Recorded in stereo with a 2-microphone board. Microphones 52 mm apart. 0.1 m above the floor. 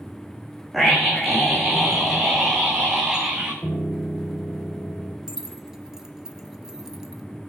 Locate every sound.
0.7 s a scream: centre (ahead or behind), 6.5 m; by 3.5 s 15° right (ahead or behind), 7.5 m
3.6 s a piano: 35° left (ahead or behind), 2.5 m
5.3 s keys jangling: 10° right (ahead or behind), 1.2 m